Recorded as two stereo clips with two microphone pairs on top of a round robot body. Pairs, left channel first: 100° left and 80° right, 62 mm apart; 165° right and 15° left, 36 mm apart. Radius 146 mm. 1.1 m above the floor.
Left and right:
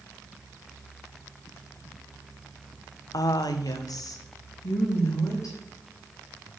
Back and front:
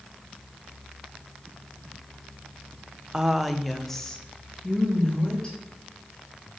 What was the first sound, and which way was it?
A woman speaking, 85° left.